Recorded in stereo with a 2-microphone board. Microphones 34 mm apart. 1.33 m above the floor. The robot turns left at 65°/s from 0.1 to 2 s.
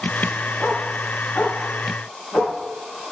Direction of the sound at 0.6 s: 15° left (ahead or behind).